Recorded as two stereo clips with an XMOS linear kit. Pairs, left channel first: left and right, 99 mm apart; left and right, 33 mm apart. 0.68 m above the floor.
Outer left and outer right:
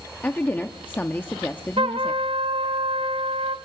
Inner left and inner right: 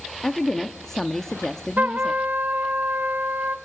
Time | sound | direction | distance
0.2 | a woman speaking | 15° left (ahead or behind) | 0.8 m
1.8 | a trumpet | 85° right | 1.1 m